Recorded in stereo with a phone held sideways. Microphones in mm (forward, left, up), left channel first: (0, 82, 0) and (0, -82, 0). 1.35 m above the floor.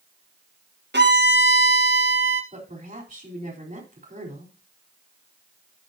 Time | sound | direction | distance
0.9 | a violin | 75° right (ahead or behind) | 1.5 m
2.5 | a woman speaking | 50° right (ahead or behind) | 4 m